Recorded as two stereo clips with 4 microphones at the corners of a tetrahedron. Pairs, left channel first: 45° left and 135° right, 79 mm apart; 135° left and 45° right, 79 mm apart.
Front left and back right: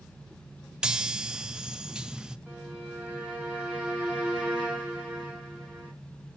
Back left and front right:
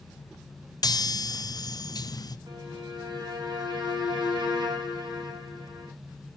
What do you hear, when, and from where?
0.8 s a chime: 150° left, 0.5 m
2.5 s a violin: 60° right, 3.5 m